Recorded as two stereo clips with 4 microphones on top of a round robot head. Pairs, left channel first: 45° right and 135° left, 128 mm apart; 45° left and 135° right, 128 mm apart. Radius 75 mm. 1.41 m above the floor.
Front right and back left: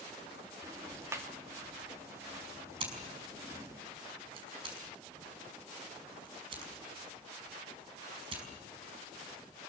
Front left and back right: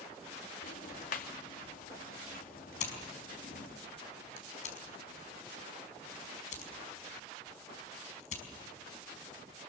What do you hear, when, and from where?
0.6 s ticking: 60° left, 2.5 m
2.8 s scissors: 80° left, 5 m